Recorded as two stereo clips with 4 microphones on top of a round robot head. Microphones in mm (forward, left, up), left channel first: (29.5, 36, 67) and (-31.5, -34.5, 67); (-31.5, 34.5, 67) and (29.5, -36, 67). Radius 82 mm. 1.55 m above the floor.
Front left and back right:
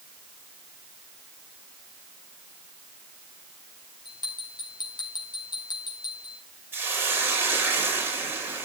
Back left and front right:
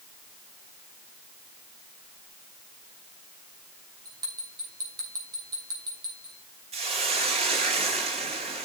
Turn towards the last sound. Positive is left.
turn(degrees=-65)